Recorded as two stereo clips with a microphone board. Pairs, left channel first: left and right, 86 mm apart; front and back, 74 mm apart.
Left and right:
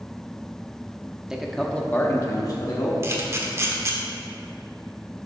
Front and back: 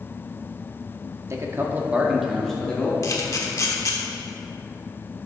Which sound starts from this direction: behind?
A man speaking, at 1.3 s.